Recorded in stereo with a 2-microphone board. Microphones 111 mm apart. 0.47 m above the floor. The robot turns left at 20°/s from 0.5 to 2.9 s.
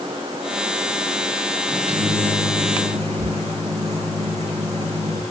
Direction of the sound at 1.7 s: 55° right (ahead or behind).